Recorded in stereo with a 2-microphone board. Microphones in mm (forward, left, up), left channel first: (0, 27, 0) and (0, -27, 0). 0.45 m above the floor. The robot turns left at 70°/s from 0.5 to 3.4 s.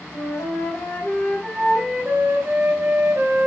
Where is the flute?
80° left, 2.5 m; by 3.5 s 120° right, 2.5 m.